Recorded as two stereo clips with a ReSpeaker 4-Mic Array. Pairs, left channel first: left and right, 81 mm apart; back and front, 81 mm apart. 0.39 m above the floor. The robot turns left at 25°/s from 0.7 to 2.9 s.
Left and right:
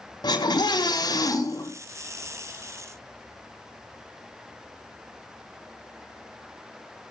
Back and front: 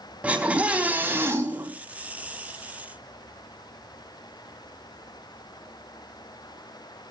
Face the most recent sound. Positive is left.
turn(degrees=20)